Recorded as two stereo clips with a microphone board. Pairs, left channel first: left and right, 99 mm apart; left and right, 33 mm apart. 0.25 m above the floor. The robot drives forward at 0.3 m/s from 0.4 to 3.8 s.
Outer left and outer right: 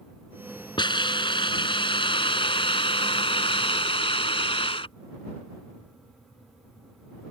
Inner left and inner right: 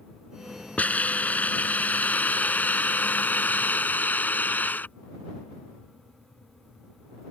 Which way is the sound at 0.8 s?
55° left (ahead or behind).